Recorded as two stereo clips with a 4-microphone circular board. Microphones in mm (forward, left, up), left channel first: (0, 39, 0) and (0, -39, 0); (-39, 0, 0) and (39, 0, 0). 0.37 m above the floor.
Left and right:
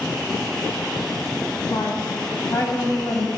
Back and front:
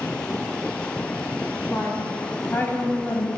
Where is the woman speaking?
120° left, 3 m; by 3.3 s 125° left, 2 m.